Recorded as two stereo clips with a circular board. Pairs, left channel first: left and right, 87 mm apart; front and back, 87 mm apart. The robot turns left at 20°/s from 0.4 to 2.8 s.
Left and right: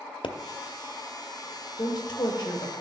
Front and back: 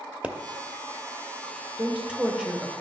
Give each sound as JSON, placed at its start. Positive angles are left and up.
{"t": 0.2, "sound": "a pop", "azimuth_deg": 105, "distance_m": 0.7}
{"t": 1.8, "sound": "a woman speaking", "azimuth_deg": 110, "distance_m": 1.3}